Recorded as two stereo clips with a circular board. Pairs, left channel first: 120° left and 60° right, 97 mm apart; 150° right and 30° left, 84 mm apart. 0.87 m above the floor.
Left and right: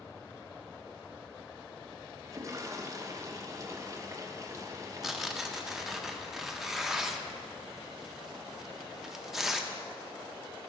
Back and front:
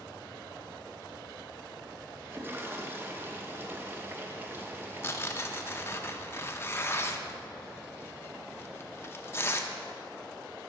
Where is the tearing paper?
140° right, 0.5 m.